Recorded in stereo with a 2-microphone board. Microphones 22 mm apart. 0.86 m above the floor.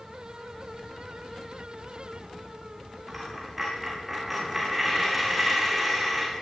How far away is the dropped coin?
About 9.5 m.